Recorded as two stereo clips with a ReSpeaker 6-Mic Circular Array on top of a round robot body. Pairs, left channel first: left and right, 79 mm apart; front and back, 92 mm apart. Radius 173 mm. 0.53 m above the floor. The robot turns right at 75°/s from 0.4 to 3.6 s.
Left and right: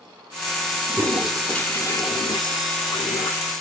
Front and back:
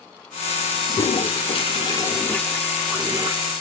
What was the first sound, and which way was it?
A toilet flushing, 35° right.